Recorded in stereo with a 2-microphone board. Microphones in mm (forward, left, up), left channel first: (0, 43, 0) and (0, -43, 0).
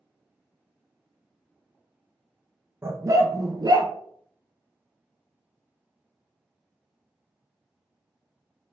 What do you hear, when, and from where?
2.8 s a dog barking: 30° right (ahead or behind), 0.7 m; by 3.9 s 50° right (ahead or behind), 1.0 m